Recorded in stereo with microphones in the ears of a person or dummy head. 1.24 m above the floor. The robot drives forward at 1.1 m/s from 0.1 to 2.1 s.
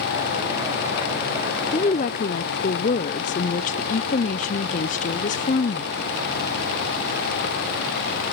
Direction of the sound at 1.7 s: 25° left (ahead or behind).